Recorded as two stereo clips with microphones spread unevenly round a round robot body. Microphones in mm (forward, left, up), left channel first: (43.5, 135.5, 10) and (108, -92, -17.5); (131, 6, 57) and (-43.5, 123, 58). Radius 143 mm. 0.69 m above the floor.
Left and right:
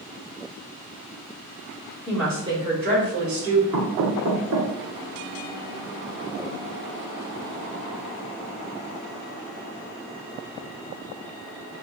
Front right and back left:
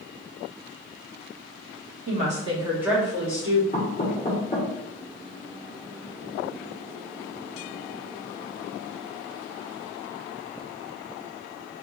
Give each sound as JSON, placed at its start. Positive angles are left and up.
{"t": 2.1, "sound": "a woman speaking", "azimuth_deg": -165, "distance_m": 1.1}
{"t": 3.7, "sound": "knocking", "azimuth_deg": -95, "distance_m": 1.3}